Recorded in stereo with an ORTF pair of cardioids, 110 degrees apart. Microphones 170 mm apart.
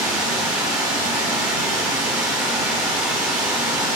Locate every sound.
0.0 s running water: 15° right, 1.7 m